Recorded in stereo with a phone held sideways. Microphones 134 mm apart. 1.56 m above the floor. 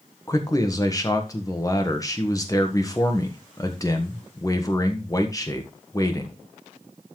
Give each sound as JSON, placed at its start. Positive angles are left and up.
{"t": 0.3, "sound": "a man speaking", "side_deg": 25, "distance_m": 1.3}